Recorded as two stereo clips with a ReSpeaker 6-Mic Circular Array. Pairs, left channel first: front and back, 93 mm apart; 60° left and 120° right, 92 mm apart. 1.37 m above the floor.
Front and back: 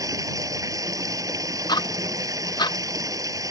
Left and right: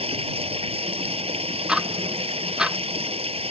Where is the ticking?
40° right.